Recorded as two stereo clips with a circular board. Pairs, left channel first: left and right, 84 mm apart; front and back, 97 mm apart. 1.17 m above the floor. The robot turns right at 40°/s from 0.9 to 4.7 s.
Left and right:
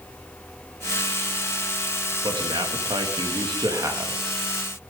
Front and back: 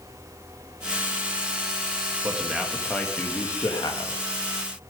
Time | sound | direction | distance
2.2 | a man speaking | 110° right | 1.9 m